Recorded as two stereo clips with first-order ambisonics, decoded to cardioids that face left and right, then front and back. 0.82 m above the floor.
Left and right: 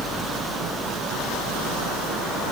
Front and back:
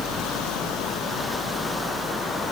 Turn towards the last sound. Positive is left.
No sound to turn to.